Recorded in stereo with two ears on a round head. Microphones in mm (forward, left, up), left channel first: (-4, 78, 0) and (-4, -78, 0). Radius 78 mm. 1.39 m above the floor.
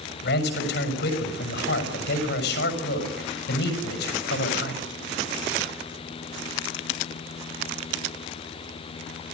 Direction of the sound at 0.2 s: 70° left (ahead or behind).